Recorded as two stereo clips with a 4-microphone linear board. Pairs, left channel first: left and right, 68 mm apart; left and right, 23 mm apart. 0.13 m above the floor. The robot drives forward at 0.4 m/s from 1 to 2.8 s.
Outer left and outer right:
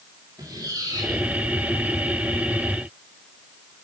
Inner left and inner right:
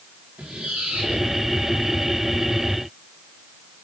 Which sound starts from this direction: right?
A squeak, at 0.4 s.